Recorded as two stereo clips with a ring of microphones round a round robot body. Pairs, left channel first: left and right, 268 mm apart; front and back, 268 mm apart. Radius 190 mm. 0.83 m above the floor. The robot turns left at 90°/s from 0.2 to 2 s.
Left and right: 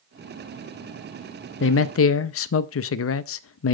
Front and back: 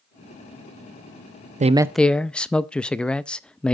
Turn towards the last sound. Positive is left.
turn(degrees=85)